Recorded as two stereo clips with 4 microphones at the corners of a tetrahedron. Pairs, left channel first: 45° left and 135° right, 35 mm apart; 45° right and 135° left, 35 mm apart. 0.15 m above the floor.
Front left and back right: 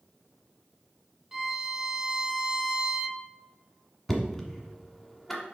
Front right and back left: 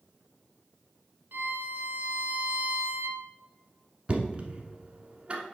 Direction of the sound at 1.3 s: 145° left.